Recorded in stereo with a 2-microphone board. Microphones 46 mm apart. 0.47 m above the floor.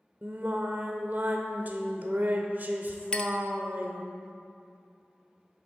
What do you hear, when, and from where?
0.2 s singing: 45° right (ahead or behind), 0.8 m
3.1 s a clink: 20° left (ahead or behind), 0.5 m